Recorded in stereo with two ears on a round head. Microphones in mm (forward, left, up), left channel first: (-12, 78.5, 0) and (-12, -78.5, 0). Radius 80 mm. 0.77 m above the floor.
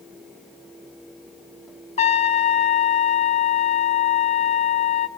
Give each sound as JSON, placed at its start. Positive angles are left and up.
{"t": 2.0, "sound": "a trumpet", "side_deg": 40, "distance_m": 0.8}